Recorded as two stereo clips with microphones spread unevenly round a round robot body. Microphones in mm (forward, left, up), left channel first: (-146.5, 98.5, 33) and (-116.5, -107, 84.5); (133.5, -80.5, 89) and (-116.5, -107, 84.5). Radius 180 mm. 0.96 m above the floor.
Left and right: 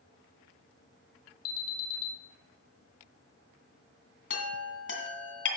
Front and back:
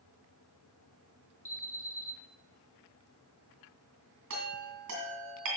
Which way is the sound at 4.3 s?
135° left.